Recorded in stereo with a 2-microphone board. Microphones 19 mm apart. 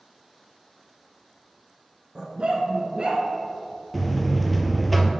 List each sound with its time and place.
2.1 s a dog barking: 35° right (ahead or behind), 1.0 m; by 3.2 s 50° right (ahead or behind), 1.5 m
3.9 s a buzzer: centre (ahead or behind), 0.6 m